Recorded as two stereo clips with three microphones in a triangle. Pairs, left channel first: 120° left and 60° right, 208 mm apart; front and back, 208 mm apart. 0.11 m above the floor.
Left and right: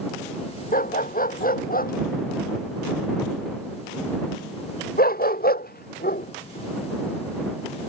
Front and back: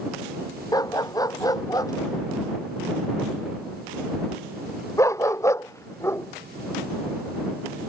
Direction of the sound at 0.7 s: 75° left.